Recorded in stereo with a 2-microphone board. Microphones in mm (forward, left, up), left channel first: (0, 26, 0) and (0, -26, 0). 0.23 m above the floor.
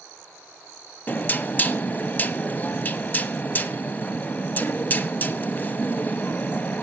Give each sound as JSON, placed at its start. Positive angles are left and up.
{"t": 1.1, "sound": "knocking", "side_deg": 35, "distance_m": 0.7}